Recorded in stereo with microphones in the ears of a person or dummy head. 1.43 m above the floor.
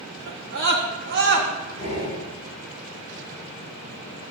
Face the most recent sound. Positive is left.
turn(degrees=35)  # may be behind; listen again after turning